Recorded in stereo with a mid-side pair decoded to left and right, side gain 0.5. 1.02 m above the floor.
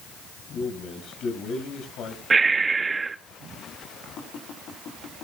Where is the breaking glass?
I don't hear breaking glass.